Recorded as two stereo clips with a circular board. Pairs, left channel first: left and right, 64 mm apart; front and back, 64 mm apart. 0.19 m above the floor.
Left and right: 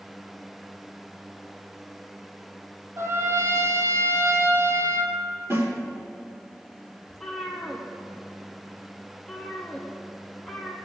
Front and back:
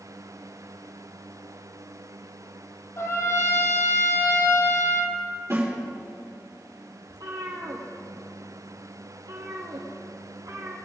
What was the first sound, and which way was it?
A trumpet, 45° right.